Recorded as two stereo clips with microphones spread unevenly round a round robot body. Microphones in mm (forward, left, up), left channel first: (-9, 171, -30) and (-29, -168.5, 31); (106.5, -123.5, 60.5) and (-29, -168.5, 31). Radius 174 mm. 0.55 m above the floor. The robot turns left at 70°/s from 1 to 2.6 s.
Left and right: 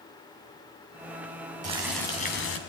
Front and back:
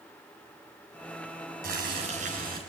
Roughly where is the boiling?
Behind.